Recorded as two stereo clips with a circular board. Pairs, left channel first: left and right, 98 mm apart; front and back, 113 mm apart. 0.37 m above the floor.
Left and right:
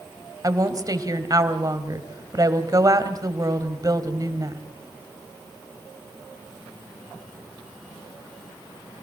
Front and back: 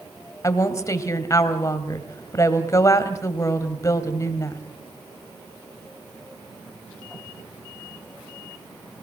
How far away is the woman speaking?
About 2.5 m.